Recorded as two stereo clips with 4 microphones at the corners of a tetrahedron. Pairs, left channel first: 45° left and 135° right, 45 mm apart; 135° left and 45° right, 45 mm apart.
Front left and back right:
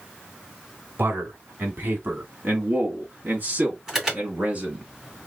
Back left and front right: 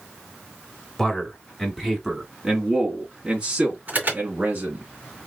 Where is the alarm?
55° right, 2.5 m.